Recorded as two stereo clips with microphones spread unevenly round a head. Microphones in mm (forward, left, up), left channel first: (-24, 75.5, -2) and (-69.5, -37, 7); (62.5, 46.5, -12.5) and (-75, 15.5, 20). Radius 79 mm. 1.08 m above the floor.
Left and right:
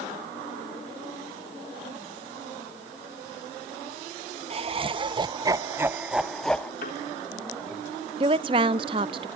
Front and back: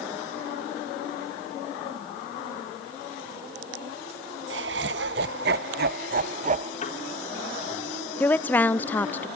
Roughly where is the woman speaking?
Ahead right.